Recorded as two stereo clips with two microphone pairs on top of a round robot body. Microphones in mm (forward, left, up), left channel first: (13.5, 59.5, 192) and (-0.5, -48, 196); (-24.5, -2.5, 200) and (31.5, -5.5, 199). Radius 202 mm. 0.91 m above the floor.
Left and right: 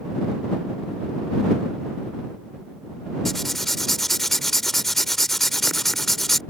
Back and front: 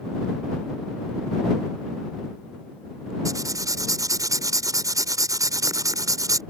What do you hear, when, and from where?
3.2 s writing: 5° right